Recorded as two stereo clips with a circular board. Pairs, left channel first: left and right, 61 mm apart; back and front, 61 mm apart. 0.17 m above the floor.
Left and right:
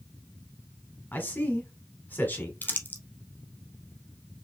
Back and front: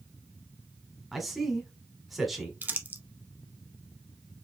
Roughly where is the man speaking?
Left.